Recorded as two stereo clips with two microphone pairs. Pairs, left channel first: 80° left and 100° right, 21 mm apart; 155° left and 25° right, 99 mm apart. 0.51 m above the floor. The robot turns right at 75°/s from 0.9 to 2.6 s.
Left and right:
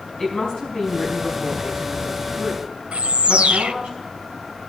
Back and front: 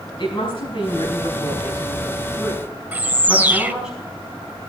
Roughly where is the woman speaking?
Behind left.